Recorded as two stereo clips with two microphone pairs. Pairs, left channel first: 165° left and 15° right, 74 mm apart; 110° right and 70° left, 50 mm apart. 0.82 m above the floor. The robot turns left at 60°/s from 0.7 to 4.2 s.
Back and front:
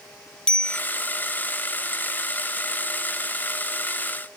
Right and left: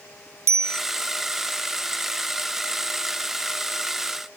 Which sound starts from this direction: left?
A bicycle bell, at 0.5 s.